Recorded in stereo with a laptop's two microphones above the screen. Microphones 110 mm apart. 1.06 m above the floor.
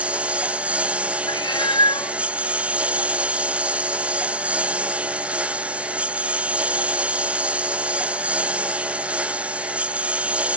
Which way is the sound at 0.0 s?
10° right (ahead or behind).